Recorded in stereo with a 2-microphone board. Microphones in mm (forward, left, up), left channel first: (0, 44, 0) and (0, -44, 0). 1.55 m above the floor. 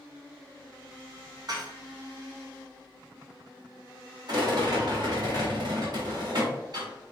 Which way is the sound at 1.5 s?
50° right (ahead or behind).